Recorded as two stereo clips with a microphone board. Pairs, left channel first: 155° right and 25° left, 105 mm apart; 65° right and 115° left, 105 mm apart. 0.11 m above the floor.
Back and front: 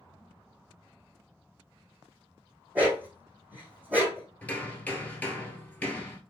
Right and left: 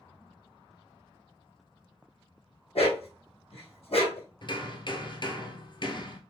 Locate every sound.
2.8 s a dog barking: 50° right, 2.5 m
4.4 s hammering: 85° right, 1.2 m